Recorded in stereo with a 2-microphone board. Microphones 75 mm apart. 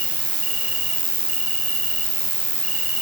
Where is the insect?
15° right (ahead or behind), 5.5 m.